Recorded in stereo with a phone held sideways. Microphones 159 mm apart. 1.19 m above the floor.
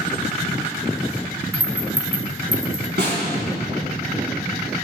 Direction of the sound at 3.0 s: 80° right.